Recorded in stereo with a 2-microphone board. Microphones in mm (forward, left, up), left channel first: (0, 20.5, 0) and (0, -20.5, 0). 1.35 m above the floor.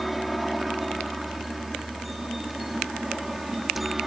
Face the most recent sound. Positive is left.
turn(degrees=0)  # may be behind; listen again after turning